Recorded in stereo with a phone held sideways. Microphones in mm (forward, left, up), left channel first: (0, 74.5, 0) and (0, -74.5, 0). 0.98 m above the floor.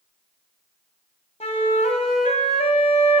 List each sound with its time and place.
1.4 s a flute: 45° left (ahead or behind), 1.1 m